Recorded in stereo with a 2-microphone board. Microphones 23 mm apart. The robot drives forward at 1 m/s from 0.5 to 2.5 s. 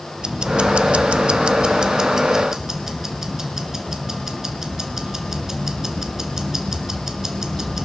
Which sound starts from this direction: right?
Ticking, at 0.2 s.